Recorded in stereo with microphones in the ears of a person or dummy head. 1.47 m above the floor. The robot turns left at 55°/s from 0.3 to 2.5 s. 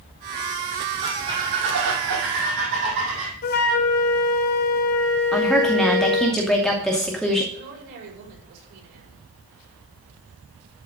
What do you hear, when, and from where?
1.0 s a squeak: 30° right, 3 m; by 3.3 s 115° right, 3 m
3.4 s a flute: 45° left (ahead or behind), 0.9 m
5.3 s a woman speaking: centre (ahead or behind), 2.5 m
7.5 s a woman speaking: 65° right (ahead or behind), 5 m